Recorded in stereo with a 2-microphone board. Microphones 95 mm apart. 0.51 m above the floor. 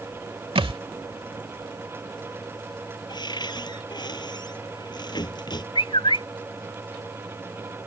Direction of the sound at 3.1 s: 50° left (ahead or behind).